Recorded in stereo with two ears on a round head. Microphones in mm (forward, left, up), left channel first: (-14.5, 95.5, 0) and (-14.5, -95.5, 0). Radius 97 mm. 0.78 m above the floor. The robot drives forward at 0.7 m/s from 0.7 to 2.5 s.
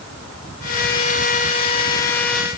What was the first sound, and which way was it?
Only background noise.